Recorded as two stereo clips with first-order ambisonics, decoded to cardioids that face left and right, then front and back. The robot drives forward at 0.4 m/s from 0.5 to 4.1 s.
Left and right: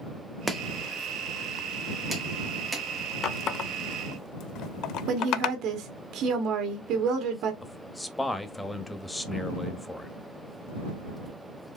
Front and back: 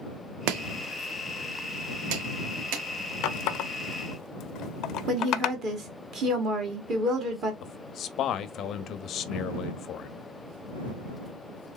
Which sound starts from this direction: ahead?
A man speaking, at 7.6 s.